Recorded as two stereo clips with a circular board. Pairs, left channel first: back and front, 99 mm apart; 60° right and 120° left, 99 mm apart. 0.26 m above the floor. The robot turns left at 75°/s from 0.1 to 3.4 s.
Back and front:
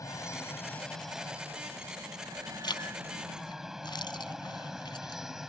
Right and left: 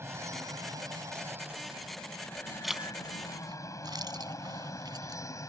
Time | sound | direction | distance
0.0 | an aircraft | 165° left | ?
2.6 | a zipper | 150° right | ?